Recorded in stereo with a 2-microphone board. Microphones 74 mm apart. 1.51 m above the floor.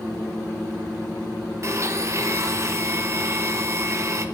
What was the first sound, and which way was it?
A blender, 40° right (ahead or behind).